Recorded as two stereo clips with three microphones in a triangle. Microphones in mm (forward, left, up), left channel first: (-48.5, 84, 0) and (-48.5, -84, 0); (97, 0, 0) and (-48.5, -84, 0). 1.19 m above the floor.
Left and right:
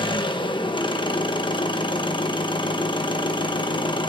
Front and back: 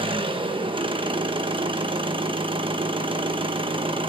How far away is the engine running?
About 1.0 m.